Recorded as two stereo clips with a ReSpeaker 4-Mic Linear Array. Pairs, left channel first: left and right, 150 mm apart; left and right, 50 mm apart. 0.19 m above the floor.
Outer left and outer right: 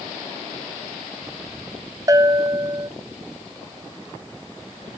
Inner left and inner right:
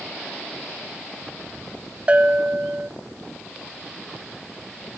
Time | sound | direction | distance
2.1 | a bell | 25° right (ahead or behind) | 0.6 m